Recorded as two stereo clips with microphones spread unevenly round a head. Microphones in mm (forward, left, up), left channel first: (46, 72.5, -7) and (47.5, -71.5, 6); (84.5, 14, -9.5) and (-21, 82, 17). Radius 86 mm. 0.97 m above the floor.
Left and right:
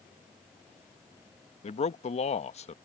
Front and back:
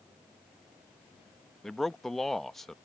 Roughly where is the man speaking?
Ahead left.